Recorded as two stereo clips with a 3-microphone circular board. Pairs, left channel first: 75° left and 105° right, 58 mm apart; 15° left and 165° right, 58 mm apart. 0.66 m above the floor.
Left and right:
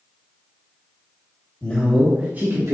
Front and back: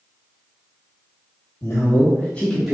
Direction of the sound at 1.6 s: 10° left.